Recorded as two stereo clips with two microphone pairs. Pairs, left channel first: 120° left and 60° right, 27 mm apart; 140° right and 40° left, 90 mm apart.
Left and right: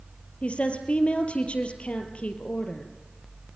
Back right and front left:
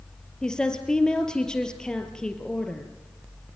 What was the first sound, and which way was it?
A woman speaking, 140° left.